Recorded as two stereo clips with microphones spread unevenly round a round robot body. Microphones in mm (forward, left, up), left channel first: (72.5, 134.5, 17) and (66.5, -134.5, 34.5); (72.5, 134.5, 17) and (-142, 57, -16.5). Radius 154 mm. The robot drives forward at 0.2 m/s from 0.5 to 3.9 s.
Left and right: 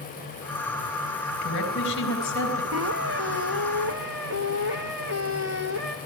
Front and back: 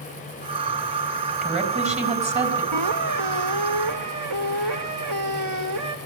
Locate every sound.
1.4 s a woman speaking: 140° left, 4 m
2.7 s a squeak: 145° right, 1.6 m; by 6.0 s 150° right, 1.8 m